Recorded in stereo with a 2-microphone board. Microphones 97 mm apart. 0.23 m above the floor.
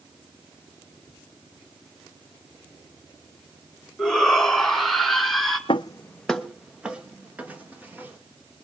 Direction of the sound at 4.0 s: 5° left (ahead or behind).